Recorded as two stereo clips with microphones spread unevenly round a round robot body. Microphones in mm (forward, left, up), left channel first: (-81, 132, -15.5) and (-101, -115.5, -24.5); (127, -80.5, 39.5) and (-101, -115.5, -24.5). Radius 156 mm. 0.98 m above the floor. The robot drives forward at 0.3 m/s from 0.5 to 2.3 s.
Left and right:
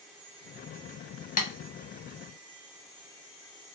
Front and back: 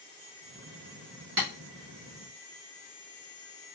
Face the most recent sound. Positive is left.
turn(degrees=150)